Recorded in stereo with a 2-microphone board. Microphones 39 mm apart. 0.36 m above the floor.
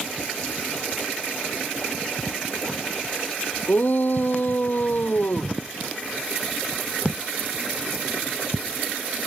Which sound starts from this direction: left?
A shout, at 3.7 s.